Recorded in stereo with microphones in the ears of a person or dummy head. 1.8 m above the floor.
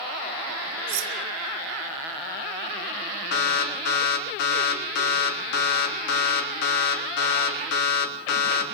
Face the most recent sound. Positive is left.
turn(degrees=65)  # may be behind; listen again after turning